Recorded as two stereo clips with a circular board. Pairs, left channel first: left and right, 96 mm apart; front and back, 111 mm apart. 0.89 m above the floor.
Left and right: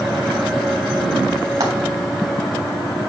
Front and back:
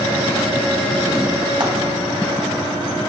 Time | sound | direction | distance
1.6 | frying | 140° right | 3 m